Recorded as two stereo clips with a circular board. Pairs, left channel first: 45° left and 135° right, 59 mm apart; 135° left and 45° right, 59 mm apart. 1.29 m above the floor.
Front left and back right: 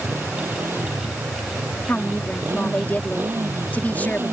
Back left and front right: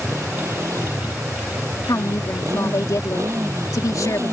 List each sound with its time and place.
0.0 s a motorcycle: 80° right
1.9 s a woman speaking: 110° left